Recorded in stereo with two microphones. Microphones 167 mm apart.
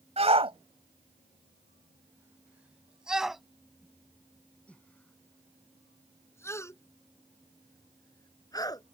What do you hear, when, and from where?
0.2 s a shout: 40° right (ahead or behind); by 8.9 s 25° left (ahead or behind)